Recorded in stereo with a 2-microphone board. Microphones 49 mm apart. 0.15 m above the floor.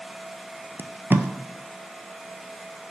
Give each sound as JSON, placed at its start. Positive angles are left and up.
{"t": 0.8, "sound": "tape being pulled", "side_deg": -50, "distance_m": 0.7}